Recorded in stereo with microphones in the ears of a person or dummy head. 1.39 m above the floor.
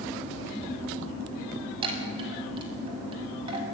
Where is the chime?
30° right (ahead or behind), 6 m.